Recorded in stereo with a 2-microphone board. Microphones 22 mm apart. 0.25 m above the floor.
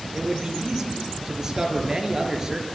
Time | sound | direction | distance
0.1 | a man speaking | 20° right (ahead or behind) | 5 m